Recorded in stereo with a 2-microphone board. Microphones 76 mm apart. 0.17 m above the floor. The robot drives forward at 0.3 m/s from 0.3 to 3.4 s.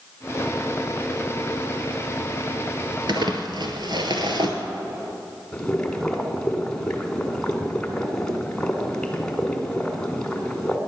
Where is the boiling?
10° left (ahead or behind), 1.6 m.